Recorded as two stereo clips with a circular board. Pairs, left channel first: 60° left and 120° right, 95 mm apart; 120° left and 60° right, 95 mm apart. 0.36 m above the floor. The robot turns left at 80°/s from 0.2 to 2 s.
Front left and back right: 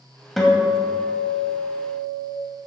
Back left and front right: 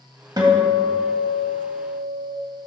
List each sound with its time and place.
0.4 s a guitar: 30° right, 1.9 m; by 2.3 s 160° right, 1.9 m